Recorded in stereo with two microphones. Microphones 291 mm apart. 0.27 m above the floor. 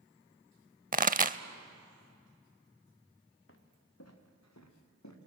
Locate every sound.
0.9 s a pop: 30° right (ahead or behind), 0.5 m
3.5 s footsteps: 45° left (ahead or behind), 2 m; by 5.2 s 75° left (ahead or behind), 3.5 m